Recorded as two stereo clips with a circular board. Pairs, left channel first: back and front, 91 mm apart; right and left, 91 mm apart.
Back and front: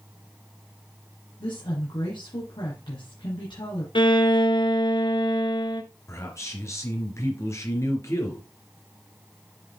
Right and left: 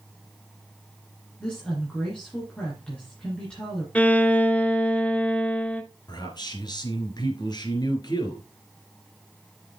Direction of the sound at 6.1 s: 125° right.